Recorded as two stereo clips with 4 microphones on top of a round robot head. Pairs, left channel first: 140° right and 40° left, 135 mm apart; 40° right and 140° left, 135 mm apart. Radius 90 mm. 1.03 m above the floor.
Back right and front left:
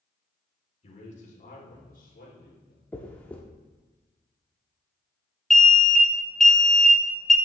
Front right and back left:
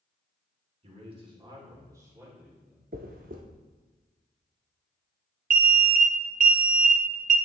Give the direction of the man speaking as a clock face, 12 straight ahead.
6 o'clock.